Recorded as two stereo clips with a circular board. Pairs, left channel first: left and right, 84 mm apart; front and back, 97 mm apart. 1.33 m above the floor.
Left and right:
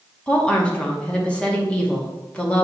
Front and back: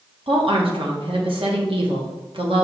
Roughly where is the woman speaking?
Behind.